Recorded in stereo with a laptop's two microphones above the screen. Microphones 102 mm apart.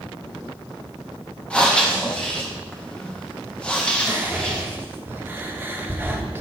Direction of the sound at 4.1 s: 20° right (ahead or behind).